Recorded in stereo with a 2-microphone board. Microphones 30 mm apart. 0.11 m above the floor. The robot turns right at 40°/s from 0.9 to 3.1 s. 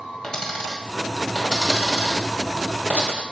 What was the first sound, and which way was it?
A dropped coin, 30° left (ahead or behind).